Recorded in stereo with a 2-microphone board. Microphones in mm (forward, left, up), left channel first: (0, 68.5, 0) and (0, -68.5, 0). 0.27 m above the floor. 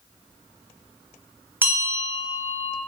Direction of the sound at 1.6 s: 15° right (ahead or behind).